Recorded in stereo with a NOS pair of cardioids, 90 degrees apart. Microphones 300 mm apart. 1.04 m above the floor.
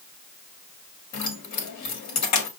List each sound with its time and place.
1.1 s keys jangling: 70° left, 1.4 m